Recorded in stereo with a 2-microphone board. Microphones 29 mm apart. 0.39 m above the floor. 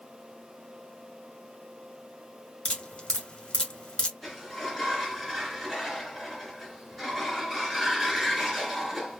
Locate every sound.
2.6 s dripping: 35° left (ahead or behind), 1.3 m
4.2 s a sliding door: 5° left (ahead or behind), 1.8 m